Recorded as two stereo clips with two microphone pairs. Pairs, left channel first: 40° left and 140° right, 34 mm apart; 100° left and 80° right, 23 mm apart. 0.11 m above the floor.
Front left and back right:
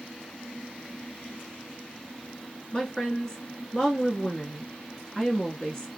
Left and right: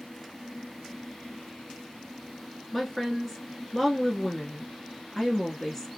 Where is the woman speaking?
50° left, 1.1 m.